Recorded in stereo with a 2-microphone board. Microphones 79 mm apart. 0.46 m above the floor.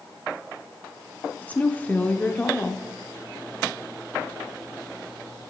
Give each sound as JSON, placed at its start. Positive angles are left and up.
{"t": 1.4, "sound": "a woman speaking", "side_deg": 20, "distance_m": 0.7}